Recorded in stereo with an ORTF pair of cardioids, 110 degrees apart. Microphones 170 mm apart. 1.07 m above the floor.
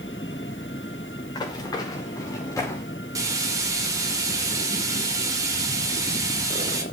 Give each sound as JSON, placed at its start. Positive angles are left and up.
{"t": 1.4, "sound": "running footsteps", "azimuth_deg": 25, "distance_m": 6.5}
{"t": 3.1, "sound": "frying", "azimuth_deg": -20, "distance_m": 4.5}